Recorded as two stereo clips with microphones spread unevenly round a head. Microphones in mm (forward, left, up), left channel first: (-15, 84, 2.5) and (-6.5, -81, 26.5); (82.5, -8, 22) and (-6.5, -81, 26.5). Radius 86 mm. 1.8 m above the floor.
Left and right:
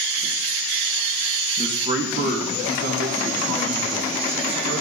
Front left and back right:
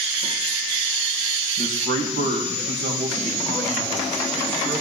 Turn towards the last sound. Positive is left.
turn(degrees=-95)